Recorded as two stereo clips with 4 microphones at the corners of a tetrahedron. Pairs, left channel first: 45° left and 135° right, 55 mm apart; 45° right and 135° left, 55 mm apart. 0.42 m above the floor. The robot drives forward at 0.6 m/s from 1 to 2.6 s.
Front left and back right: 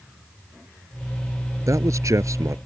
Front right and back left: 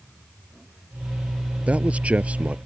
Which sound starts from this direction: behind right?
A man speaking, at 1.7 s.